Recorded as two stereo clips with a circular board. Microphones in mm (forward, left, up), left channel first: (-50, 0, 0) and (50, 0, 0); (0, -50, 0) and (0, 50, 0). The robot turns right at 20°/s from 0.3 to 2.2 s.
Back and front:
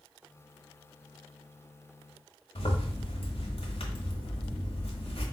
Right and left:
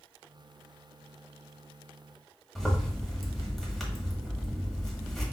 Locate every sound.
2.5 s a zipper: straight behind, 1.3 m